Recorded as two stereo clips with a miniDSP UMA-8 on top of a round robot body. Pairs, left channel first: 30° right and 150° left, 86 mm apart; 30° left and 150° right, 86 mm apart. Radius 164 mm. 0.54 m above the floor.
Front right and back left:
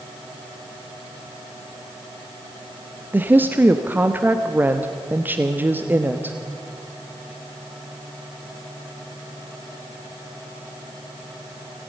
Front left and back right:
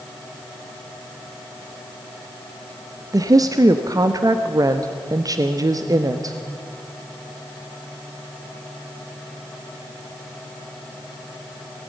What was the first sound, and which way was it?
A woman speaking, 150° right.